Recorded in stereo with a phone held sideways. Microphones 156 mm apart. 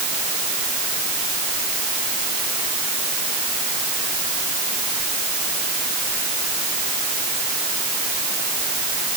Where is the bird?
No bird in this recording.